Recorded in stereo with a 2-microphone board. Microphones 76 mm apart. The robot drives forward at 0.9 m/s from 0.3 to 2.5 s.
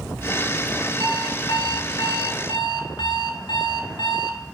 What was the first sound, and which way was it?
An alarm clock, 70° left (ahead or behind).